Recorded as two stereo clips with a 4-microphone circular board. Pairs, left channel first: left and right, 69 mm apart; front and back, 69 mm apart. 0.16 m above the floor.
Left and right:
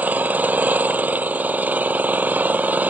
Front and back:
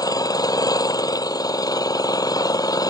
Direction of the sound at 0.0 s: 25° right.